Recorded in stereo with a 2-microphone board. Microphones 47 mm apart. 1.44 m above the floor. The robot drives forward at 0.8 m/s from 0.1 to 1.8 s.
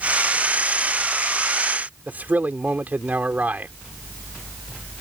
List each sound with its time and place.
2.1 s a man speaking: 40° right (ahead or behind)